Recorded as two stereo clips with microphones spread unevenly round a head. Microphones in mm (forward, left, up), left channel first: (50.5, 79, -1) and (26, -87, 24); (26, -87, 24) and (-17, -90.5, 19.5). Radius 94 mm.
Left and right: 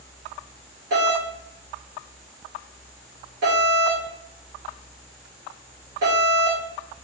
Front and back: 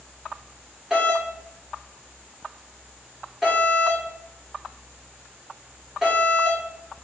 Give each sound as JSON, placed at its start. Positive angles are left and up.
{"t": 0.9, "sound": "a doorbell", "azimuth_deg": -110, "distance_m": 1.7}